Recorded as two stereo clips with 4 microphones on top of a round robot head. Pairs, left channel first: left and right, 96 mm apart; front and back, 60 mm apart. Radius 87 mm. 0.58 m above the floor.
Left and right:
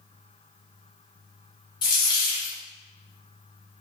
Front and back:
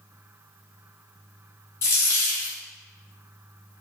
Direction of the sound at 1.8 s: 45° left.